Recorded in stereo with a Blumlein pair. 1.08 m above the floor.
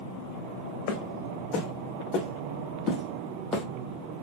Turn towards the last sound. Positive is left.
turn(degrees=5)